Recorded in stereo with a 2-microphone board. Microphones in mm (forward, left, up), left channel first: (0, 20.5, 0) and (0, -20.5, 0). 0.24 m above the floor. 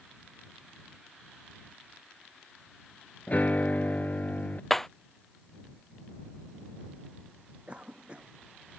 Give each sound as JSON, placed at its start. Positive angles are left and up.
{"t": 3.3, "sound": "a piano", "side_deg": 40}
{"t": 4.7, "sound": "breaking glass", "side_deg": 5}
{"t": 7.7, "sound": "a cough", "side_deg": -25}